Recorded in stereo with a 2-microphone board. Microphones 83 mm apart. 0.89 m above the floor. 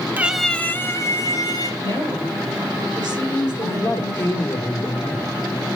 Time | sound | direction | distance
0.2 | a cat meowing | 25° right (ahead or behind) | 0.5 m
1.8 | a woman speaking | 60° right (ahead or behind) | 2.5 m
3.6 | a man speaking | 35° left (ahead or behind) | 1.9 m